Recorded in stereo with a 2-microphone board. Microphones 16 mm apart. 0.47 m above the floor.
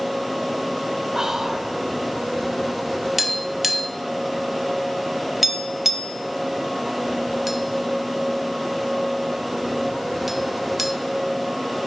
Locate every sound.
1.1 s whispering: 40° right (ahead or behind), 1.6 m
3.2 s tapping: 20° right (ahead or behind), 0.9 m